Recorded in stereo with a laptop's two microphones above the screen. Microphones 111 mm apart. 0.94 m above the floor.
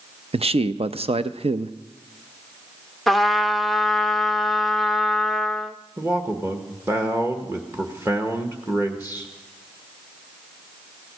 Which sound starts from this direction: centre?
A trumpet, at 3.1 s.